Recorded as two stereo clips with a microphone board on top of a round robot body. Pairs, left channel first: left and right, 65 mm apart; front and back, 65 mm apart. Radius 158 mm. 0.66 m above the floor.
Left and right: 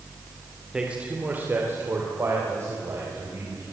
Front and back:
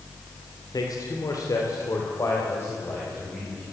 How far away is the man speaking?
About 3 m.